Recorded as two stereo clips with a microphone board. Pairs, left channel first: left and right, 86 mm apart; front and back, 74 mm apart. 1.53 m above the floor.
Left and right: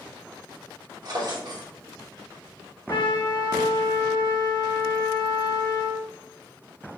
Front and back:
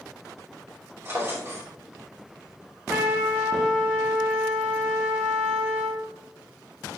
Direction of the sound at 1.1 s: 125° right.